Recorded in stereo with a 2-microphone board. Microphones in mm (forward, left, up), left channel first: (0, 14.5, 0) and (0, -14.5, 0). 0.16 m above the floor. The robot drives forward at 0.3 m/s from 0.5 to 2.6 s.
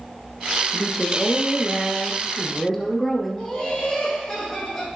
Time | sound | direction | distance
0.7 | a woman speaking | centre (ahead or behind) | 1.9 m
3.4 | laughter | 20° left (ahead or behind) | 5.5 m